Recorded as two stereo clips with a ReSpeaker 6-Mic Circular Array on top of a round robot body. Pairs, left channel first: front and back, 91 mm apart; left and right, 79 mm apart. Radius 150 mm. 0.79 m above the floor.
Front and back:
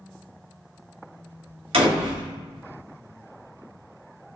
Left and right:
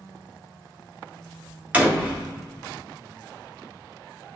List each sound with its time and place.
1.7 s a door slam: 165° right, 2 m